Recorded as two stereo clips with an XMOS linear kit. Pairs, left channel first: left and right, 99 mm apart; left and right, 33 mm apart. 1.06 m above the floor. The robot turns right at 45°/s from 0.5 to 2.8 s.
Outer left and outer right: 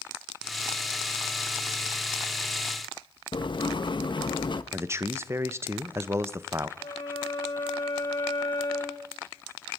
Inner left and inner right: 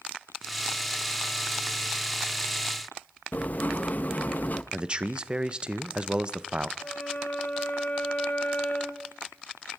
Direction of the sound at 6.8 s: 50° left (ahead or behind).